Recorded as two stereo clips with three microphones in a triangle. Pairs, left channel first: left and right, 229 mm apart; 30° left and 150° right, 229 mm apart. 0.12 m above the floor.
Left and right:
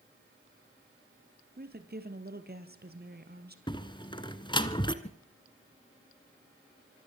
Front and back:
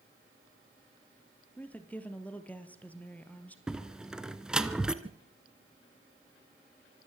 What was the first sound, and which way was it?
A woman speaking, 55° right.